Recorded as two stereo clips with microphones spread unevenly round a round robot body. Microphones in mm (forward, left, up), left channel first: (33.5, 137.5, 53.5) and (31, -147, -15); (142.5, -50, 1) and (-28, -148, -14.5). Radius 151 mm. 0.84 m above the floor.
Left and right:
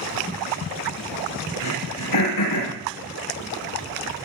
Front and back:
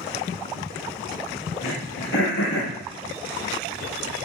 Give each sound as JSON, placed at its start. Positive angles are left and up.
{"t": 1.6, "sound": "throat clearing", "azimuth_deg": 75, "distance_m": 8.5}